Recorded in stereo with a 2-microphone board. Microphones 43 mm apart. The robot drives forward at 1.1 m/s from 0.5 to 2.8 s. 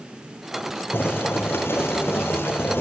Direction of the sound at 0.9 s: 60° left (ahead or behind).